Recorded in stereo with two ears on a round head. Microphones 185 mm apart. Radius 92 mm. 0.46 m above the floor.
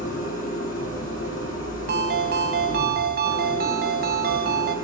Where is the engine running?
40° left (ahead or behind), 7.5 m.